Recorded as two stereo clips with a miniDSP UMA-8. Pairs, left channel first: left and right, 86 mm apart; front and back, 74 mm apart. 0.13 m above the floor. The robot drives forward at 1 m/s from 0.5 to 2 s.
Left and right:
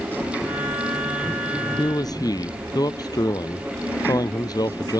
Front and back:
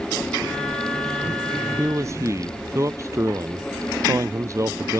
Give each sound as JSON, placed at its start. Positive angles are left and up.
{"t": 1.8, "sound": "a man speaking", "azimuth_deg": 130}